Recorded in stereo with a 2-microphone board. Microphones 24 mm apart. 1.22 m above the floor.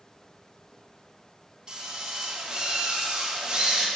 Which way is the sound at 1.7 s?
35° right (ahead or behind).